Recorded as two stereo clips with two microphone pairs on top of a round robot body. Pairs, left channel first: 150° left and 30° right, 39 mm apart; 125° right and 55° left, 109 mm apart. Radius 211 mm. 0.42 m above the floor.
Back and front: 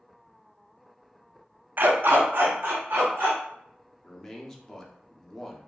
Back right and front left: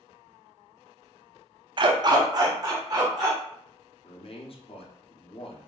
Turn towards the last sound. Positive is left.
turn(degrees=-130)